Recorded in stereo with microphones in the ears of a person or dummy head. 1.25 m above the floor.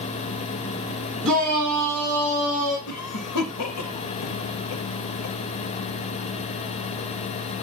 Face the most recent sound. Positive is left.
turn(degrees=85)